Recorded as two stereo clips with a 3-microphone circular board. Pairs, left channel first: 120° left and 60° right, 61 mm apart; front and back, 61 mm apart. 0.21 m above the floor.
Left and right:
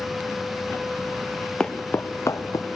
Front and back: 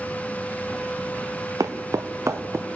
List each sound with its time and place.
1.6 s footsteps: 165° right, 1.2 m; by 2.7 s 135° left, 1.6 m